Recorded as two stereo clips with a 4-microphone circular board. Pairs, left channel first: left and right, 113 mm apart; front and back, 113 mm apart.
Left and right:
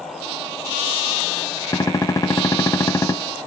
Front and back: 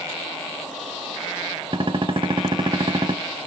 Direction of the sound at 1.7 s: 150° left.